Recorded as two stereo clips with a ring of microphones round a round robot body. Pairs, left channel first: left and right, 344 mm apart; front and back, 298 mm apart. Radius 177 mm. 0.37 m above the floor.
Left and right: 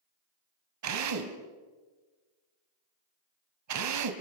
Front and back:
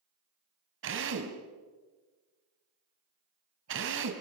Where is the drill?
130° right, 2.5 m.